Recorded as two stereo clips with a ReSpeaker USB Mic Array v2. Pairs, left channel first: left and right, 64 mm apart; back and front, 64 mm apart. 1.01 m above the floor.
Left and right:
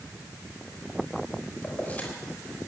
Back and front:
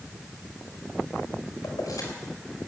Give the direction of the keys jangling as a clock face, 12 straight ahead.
7 o'clock.